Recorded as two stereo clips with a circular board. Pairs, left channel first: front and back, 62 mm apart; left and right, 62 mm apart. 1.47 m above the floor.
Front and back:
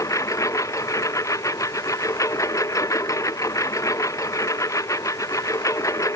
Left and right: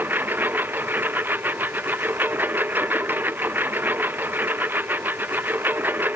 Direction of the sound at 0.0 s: 30° right.